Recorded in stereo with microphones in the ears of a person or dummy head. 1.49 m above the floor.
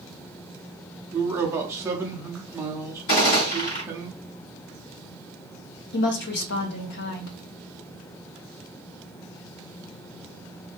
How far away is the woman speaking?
About 0.7 m.